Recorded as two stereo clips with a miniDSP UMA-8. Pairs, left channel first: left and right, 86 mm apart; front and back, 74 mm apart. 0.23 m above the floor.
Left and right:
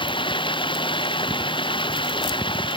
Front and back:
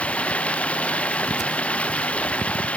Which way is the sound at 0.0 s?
75° left.